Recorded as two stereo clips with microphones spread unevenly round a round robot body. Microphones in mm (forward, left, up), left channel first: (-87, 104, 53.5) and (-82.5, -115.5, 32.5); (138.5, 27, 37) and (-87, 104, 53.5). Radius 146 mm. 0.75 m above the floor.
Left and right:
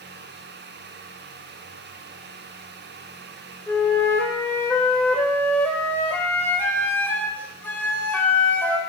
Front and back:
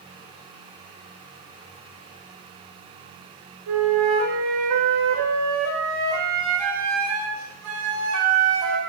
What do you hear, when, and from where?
3.7 s a flute: 175° left, 2 m